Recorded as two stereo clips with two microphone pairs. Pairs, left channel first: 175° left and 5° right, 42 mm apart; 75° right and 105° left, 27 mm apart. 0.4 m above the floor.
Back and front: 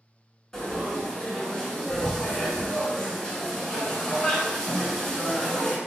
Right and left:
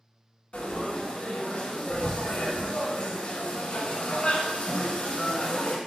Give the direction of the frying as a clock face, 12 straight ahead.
4 o'clock.